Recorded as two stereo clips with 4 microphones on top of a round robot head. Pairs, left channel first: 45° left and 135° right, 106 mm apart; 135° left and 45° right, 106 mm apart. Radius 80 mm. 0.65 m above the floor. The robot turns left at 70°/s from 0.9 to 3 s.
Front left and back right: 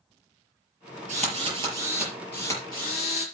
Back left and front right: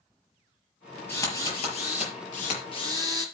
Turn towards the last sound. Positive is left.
turn(degrees=75)